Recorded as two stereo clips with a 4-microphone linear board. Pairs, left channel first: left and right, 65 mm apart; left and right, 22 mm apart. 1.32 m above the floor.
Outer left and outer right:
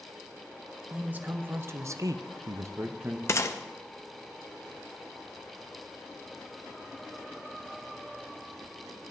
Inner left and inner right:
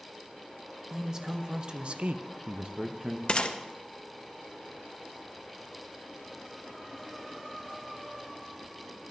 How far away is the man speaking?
About 1.3 m.